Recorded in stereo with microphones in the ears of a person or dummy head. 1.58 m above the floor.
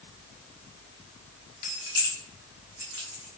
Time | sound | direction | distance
1.6 | keys jangling | 35° left (ahead or behind) | 0.5 m